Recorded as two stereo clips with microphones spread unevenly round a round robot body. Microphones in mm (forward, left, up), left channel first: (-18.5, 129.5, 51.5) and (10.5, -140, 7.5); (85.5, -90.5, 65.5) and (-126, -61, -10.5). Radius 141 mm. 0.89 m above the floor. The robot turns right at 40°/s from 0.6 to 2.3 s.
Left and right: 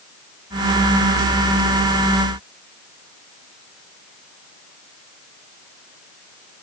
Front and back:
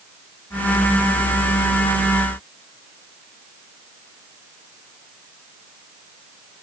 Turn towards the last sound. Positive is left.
No sound to turn to.